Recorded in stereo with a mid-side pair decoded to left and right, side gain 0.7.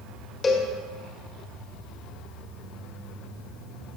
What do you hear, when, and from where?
0.4 s a cowbell: 30° left, 1.5 m